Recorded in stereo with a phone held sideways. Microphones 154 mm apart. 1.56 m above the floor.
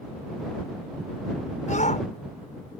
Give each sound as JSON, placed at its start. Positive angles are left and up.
{"t": 1.7, "sound": "a shout", "side_deg": 55}